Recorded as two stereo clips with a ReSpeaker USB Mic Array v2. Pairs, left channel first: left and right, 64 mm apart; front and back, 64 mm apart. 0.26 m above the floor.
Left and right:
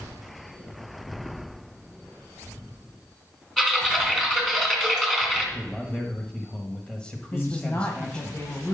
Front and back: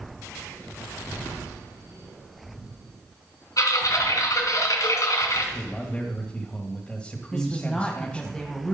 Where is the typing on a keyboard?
10° left, 2.5 m.